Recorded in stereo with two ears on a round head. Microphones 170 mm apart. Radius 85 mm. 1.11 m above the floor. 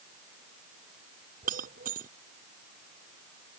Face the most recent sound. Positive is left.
turn(degrees=-45)  # may be behind; listen again after turning